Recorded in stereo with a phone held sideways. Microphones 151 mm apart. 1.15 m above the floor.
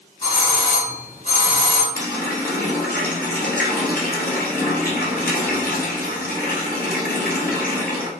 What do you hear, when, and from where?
0.2 s a doorbell: 55° left (ahead or behind), 1.9 m
1.9 s a running tap: 75° left (ahead or behind), 0.9 m